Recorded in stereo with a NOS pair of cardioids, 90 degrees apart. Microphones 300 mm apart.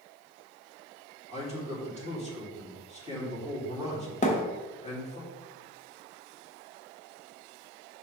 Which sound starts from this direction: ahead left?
A thud, at 4.2 s.